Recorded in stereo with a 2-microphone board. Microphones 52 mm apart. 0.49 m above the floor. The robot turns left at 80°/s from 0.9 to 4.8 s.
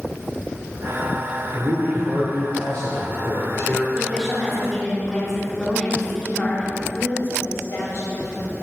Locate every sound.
1.5 s a man speaking: 130° right, 1.1 m; by 3.9 s 45° left, 1.1 m
4.0 s a woman speaking: 15° right (ahead or behind), 1.4 m; by 6.8 s 10° left (ahead or behind), 1.4 m
6.9 s a woman speaking: 60° left (ahead or behind), 2.5 m